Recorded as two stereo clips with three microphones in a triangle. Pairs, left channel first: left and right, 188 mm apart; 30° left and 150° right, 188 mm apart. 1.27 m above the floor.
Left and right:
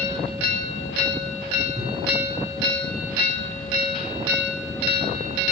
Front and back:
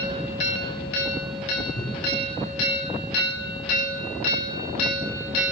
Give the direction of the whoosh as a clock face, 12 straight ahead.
1 o'clock.